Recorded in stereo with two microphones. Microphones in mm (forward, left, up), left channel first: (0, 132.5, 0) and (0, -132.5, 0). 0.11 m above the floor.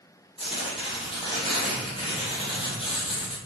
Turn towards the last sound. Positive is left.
turn(degrees=20)  # may be behind; listen again after turning